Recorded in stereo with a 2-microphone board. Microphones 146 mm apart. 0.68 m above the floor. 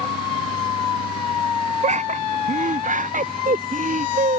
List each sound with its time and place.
1.8 s laughter: 55° right (ahead or behind); by 4.4 s 65° right (ahead or behind)